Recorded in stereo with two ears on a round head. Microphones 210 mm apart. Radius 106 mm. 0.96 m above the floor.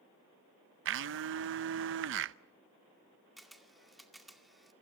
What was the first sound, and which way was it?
A blender, 55° right (ahead or behind).